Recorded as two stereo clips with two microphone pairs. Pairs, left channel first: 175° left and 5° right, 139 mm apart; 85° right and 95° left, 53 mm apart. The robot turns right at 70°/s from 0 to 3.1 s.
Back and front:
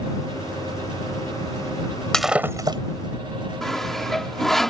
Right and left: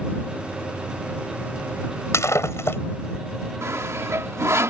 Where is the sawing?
90° left.